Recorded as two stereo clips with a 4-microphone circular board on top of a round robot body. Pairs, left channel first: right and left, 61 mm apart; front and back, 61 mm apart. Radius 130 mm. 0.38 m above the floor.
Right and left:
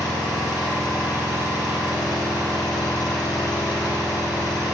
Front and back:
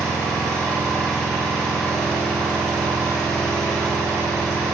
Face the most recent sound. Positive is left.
turn(degrees=-85)